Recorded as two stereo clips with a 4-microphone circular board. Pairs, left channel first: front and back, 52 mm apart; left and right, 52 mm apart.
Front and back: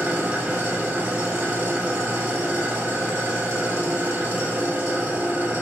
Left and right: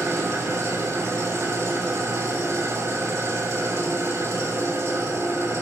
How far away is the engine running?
About 8 m.